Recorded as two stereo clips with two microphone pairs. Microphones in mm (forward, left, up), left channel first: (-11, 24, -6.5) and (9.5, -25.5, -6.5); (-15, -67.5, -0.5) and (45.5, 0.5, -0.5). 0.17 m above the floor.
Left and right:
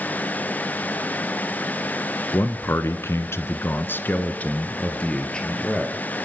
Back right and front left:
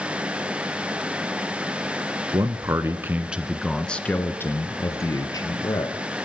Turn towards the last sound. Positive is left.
turn(degrees=-170)